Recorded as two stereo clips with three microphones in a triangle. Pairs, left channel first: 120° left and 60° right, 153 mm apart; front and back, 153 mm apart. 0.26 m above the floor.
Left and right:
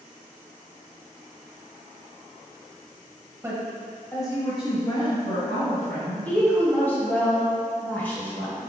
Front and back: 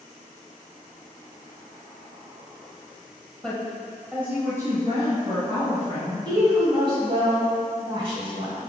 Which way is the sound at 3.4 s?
70° right.